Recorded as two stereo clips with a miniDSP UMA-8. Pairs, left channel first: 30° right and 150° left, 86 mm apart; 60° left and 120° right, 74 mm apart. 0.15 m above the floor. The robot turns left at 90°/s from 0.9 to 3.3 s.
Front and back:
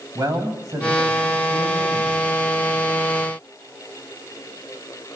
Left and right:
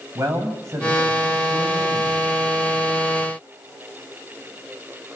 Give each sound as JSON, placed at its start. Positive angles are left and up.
{"t": 0.1, "sound": "a man speaking", "azimuth_deg": -170, "distance_m": 8.5}